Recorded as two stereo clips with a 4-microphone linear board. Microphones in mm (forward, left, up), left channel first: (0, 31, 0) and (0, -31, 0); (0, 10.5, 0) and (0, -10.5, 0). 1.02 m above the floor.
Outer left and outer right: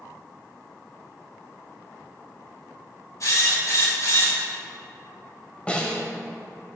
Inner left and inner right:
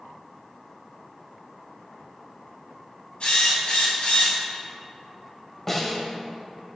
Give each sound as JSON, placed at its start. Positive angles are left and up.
{"t": 3.2, "sound": "a drill", "side_deg": 60, "distance_m": 4.0}
{"t": 5.7, "sound": "a snare drum", "side_deg": 20, "distance_m": 1.6}